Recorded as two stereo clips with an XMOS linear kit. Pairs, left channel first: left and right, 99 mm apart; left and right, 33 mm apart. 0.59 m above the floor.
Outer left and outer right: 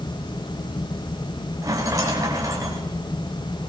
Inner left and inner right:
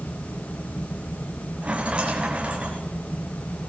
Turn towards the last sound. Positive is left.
turn(degrees=-35)  # may be behind; listen again after turning